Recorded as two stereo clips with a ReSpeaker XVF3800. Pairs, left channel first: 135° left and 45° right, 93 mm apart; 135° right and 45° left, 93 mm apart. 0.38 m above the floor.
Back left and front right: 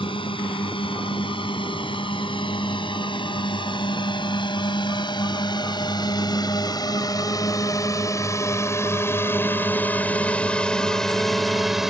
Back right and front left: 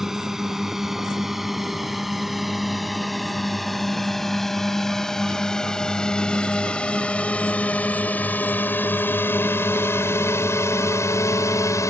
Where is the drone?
130° left; by 11.9 s 130° right.